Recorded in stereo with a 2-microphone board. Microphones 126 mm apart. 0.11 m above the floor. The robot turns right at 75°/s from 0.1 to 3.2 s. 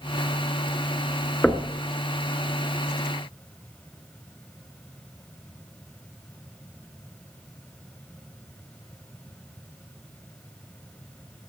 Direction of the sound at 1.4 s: 5° left (ahead or behind).